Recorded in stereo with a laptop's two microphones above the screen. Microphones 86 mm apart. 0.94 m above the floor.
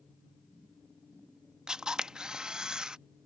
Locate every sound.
1.7 s a camera shutter: 10° right (ahead or behind)